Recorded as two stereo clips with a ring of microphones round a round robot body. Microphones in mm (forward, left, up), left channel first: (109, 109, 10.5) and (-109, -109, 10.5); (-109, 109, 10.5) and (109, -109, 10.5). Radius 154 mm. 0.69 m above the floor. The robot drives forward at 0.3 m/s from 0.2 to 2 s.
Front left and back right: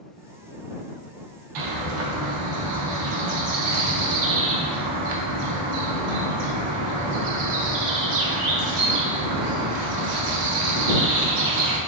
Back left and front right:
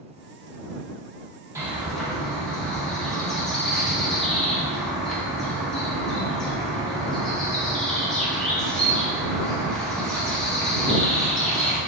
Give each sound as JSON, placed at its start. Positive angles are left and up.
{"t": 1.6, "sound": "a bird", "azimuth_deg": -125, "distance_m": 0.5}